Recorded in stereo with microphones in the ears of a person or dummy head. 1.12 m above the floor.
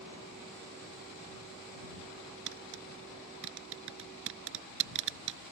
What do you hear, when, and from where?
2.5 s tapping: 70° right (ahead or behind)